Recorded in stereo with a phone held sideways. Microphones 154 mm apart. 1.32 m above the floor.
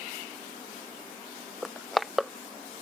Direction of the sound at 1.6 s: Centre (ahead or behind).